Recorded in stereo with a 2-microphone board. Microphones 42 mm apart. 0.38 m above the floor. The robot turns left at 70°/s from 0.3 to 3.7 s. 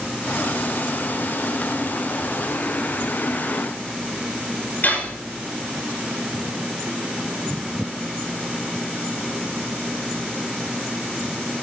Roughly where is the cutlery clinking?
Left.